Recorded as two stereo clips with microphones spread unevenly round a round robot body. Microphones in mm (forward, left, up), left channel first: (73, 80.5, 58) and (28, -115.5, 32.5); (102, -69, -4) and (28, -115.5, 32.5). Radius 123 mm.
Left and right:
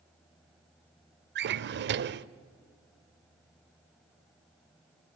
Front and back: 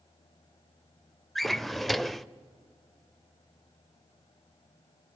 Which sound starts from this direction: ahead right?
A drawer, at 1.4 s.